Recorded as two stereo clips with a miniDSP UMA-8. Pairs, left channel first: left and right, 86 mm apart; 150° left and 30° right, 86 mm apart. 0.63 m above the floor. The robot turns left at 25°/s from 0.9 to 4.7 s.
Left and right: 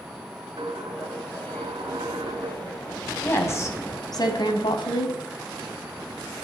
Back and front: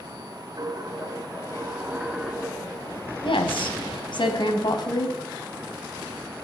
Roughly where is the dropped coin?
Right.